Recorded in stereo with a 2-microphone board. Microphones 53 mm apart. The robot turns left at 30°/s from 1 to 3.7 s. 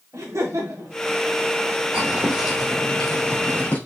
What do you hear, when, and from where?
0.1 s laughter: 65° right (ahead or behind), 1.8 m
1.9 s footsteps: 15° right (ahead or behind), 3.5 m; by 3.8 s 35° left (ahead or behind), 4.5 m